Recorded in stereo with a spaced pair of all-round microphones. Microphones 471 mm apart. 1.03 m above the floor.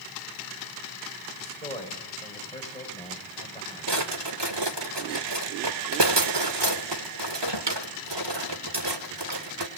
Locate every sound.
1.4 s a man speaking: 10° left (ahead or behind), 6 m
3.9 s a drawer: 55° right (ahead or behind), 1.5 m